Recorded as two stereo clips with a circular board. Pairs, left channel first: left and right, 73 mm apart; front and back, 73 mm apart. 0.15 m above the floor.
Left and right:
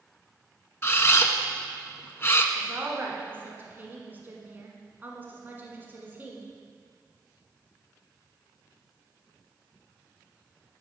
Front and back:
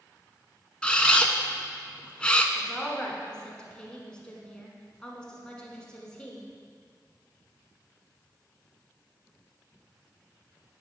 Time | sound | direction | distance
0.8 | a camera shutter | 65° left | 0.5 m
2.5 | a woman speaking | 65° right | 1.1 m